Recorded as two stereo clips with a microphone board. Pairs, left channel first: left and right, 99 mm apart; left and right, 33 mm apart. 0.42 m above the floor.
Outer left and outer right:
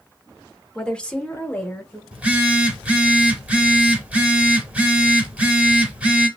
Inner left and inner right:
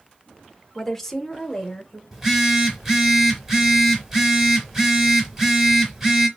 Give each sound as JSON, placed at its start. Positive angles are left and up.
{"t": 0.8, "sound": "a woman speaking", "side_deg": 5, "distance_m": 0.9}
{"t": 2.1, "sound": "a phone buzzing", "side_deg": -15, "distance_m": 0.9}